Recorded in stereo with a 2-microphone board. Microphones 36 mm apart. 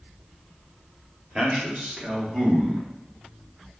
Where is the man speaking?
30° right (ahead or behind), 0.9 m; by 2.9 s 25° right (ahead or behind), 2.0 m.